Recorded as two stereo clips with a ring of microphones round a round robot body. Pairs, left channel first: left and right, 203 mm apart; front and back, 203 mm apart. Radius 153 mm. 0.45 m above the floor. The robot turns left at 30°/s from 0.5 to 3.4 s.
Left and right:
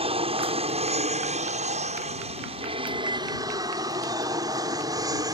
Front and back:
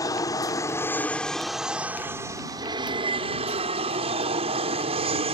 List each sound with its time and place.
0.0 s an aircraft: 60° right; by 5.4 s 150° right